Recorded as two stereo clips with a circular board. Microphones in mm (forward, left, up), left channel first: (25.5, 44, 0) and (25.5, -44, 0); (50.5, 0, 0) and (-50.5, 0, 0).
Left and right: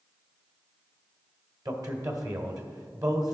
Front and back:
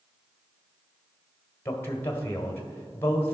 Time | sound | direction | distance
1.6 | a man speaking | 60° right | 1.5 m